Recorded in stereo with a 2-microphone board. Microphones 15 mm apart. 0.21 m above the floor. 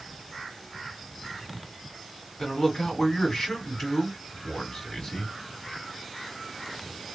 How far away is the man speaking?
About 1.9 m.